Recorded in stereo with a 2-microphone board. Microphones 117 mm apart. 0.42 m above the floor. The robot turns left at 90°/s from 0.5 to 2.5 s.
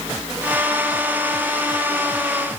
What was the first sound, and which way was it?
Only background noise.